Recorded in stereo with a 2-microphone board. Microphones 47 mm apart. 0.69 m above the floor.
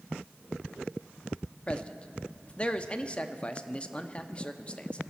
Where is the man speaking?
25° left (ahead or behind), 0.7 m.